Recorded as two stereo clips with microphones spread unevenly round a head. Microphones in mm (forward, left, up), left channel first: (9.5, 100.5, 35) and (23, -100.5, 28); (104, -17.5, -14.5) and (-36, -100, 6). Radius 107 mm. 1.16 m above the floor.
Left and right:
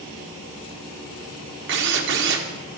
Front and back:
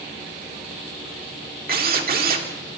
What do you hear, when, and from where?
1.7 s a drill: 120° right, 3 m